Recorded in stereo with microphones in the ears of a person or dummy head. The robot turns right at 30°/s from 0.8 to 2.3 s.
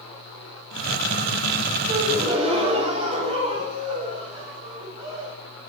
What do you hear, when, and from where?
1.9 s a gasp: 20° right (ahead or behind), 4.5 m; by 5.3 s 35° right (ahead or behind), 4.5 m